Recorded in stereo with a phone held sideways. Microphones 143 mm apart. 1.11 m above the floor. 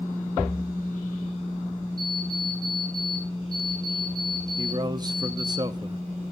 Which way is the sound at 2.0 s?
5° left (ahead or behind).